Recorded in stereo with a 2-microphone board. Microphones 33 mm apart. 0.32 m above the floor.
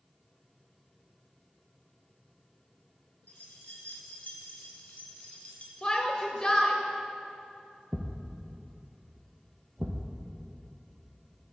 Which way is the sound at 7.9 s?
45° right (ahead or behind).